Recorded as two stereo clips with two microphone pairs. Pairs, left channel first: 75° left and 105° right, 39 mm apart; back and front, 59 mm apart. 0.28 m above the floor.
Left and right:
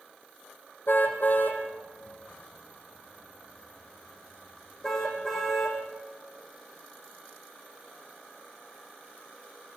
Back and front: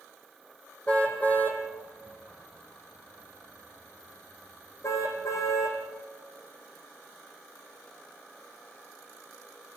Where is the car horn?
110° left, 4.5 m; by 5.8 s 155° left, 6 m.